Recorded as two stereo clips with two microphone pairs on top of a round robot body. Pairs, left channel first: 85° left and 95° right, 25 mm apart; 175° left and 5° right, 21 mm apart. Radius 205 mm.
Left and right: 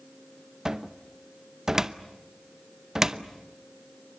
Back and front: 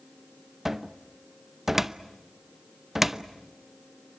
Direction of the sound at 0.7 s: 35° right.